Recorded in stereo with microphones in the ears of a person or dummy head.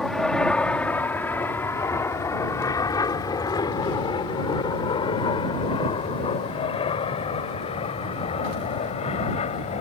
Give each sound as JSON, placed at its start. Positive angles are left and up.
{"t": 0.0, "sound": "an aircraft", "side_deg": 0}